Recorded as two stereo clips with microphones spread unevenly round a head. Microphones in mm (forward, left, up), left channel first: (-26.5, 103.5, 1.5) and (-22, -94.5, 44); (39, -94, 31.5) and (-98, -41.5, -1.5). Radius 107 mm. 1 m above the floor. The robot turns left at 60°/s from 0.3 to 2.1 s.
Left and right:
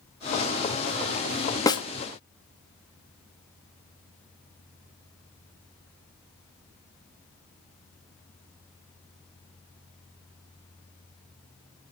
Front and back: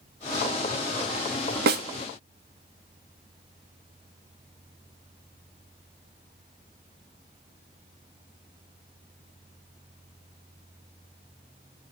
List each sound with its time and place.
1.7 s a snare drum: 165° left, 0.7 m; by 1.8 s 155° left, 0.7 m